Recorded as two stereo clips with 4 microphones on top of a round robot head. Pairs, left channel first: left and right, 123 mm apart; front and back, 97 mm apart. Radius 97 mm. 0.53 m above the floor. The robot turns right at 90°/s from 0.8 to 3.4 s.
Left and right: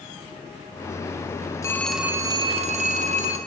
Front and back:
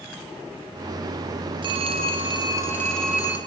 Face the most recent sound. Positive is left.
turn(degrees=-45)